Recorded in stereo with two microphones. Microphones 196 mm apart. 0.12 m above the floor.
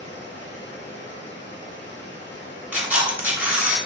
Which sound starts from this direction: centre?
A camera shutter, at 2.7 s.